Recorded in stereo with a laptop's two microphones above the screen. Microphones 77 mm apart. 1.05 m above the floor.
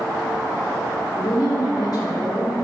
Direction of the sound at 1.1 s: 55° left (ahead or behind).